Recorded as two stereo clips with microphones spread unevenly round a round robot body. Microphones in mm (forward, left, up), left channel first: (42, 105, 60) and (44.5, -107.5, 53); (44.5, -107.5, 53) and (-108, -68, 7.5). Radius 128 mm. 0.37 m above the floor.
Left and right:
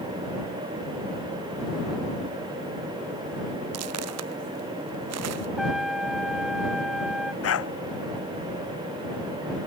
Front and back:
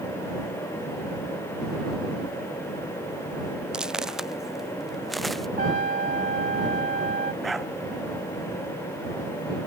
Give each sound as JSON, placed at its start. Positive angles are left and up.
{"t": 3.7, "sound": "footsteps", "azimuth_deg": -110}
{"t": 5.6, "sound": "a trumpet", "azimuth_deg": 180}
{"t": 7.4, "sound": "a dog barking", "azimuth_deg": 75}